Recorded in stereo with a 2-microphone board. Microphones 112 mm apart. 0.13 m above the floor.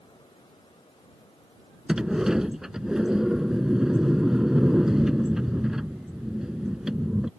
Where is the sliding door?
5° right (ahead or behind).